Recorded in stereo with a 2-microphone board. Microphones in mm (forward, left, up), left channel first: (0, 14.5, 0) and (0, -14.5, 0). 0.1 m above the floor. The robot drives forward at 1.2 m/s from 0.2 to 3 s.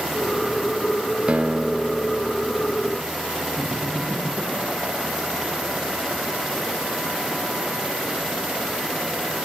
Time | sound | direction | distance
1.3 | a guitar | 45° right (ahead or behind) | 0.7 m
3.6 | laughter | 80° right | 7.5 m